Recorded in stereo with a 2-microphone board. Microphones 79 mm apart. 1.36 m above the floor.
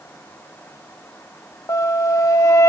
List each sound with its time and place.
1.7 s a flute: 40° left (ahead or behind), 1.2 m